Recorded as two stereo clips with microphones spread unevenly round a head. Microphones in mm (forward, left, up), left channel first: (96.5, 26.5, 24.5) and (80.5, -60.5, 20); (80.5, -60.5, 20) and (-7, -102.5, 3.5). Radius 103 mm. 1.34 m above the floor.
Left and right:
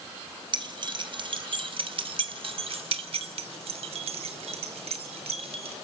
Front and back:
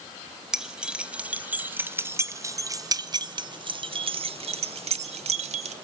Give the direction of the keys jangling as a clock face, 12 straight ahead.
2 o'clock.